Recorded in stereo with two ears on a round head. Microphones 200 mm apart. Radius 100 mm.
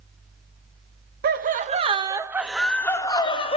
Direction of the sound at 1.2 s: 45° right (ahead or behind).